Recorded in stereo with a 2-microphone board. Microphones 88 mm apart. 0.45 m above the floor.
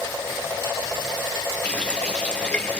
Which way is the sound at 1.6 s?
15° left (ahead or behind).